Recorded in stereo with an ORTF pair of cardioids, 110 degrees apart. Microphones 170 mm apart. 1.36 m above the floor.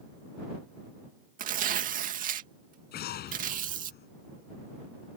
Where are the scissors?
I don't hear scissors.